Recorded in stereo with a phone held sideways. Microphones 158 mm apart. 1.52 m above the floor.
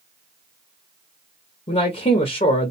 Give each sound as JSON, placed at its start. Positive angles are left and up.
{"t": 1.7, "sound": "a man speaking", "side_deg": 45, "distance_m": 0.5}